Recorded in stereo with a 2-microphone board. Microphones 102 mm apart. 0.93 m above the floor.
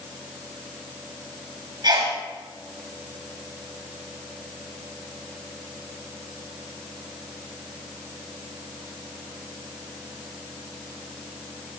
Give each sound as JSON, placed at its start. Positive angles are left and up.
{"t": 1.8, "sound": "a sneeze", "side_deg": -45, "distance_m": 7.5}